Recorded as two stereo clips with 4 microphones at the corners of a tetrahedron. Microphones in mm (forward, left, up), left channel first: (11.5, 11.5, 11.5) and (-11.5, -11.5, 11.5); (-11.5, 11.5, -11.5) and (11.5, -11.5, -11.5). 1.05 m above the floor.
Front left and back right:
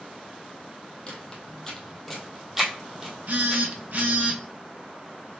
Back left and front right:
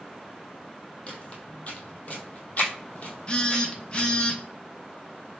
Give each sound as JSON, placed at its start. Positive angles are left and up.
{"t": 1.1, "sound": "footsteps", "azimuth_deg": 95, "distance_m": 1.5}
{"t": 3.3, "sound": "a phone buzzing", "azimuth_deg": -165, "distance_m": 0.8}